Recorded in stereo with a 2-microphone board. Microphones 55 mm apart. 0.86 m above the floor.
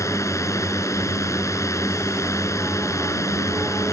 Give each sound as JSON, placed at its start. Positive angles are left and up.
{"t": 0.0, "sound": "a drone", "side_deg": 70}